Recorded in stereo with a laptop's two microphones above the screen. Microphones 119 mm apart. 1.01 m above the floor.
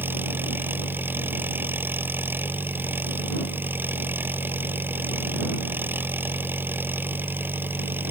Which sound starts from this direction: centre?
An engine running, at 0.0 s.